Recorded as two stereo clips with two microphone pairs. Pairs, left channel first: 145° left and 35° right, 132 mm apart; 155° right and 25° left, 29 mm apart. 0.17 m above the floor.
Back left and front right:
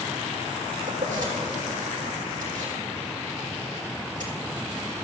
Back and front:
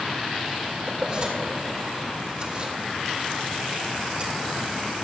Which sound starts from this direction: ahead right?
Keys jangling, at 0.9 s.